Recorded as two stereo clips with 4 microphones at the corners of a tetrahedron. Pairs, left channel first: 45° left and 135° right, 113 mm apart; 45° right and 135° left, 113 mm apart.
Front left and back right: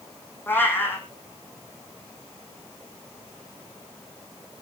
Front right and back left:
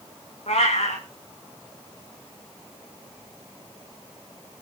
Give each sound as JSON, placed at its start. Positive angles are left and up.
{"t": 0.5, "sound": "a cat meowing", "azimuth_deg": -25, "distance_m": 5.0}